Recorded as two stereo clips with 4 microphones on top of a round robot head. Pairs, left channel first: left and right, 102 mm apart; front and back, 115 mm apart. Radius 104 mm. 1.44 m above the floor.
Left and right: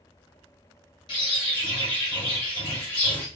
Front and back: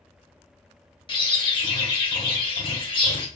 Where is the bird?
40° left, 1.7 m.